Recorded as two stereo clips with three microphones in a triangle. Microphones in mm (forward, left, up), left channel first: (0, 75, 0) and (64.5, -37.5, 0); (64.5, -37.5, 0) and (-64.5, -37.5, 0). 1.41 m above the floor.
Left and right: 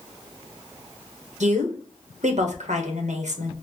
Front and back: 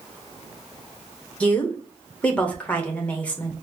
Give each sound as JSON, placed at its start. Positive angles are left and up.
{"t": 1.4, "sound": "a woman speaking", "azimuth_deg": -80, "distance_m": 1.0}